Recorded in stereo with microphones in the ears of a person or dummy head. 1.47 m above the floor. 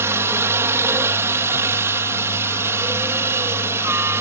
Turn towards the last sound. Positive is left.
turn(degrees=-10)  # may be behind; listen again after turning